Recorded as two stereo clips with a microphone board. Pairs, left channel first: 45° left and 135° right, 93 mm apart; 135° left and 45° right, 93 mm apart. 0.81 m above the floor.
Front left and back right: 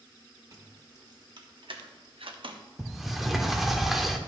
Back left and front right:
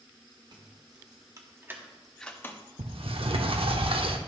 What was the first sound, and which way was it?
Keys jangling, 80° right.